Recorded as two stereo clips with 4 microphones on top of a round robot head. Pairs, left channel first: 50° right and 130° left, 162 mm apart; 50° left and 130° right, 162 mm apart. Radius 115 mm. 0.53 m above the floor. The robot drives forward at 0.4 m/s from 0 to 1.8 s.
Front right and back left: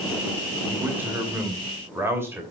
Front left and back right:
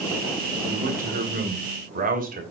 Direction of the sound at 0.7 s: 155° right.